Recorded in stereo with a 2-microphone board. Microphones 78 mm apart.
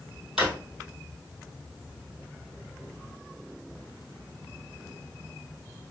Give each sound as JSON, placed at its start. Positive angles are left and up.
{"t": 0.4, "sound": "a drawer", "side_deg": -10, "distance_m": 1.6}